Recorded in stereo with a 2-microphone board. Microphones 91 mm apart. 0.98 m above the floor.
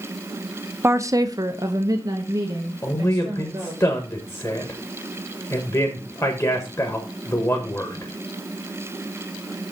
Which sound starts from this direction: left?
A man speaking, at 2.8 s.